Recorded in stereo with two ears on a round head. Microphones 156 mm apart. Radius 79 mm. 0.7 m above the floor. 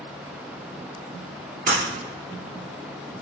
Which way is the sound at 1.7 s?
45° right (ahead or behind).